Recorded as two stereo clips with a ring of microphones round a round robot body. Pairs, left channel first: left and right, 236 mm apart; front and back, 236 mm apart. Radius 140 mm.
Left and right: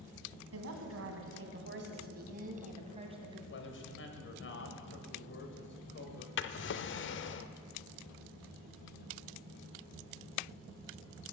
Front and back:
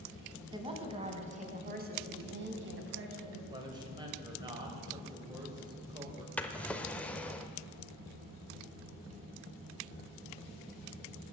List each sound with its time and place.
0.5 s a woman speaking: 110° right, 3 m; by 3.4 s 160° right, 2.5 m
3.5 s a man speaking: 110° left, 2.5 m
6.4 s a drawer: 85° left, 0.7 m